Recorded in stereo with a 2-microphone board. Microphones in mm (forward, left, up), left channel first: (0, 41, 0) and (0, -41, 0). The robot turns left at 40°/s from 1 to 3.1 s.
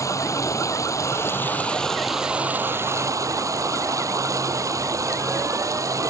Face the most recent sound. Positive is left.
turn(degrees=-45)